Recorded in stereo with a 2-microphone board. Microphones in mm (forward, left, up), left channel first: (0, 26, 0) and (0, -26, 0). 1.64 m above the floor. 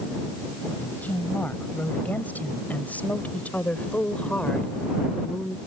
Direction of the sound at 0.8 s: 35° left (ahead or behind).